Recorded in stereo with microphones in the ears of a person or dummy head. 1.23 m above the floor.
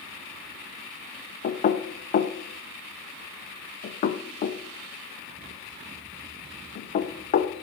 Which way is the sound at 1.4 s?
35° left (ahead or behind).